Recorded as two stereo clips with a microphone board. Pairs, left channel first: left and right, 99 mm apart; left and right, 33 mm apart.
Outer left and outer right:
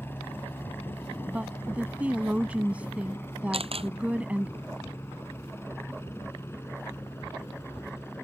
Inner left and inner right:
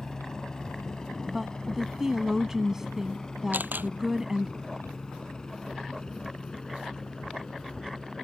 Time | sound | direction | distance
0.0 | a helicopter | 20° left (ahead or behind) | ?
1.3 | a woman speaking | 15° right (ahead or behind) | ?
3.5 | a camera shutter | 75° right (ahead or behind) | ?